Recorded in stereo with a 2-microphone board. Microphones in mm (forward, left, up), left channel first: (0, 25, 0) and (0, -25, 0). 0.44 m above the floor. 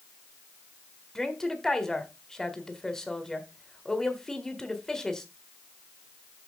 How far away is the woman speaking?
About 1.7 m.